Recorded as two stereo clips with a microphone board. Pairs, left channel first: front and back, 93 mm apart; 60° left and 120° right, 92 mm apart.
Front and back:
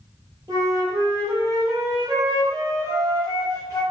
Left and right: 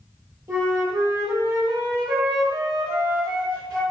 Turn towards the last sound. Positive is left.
turn(degrees=-160)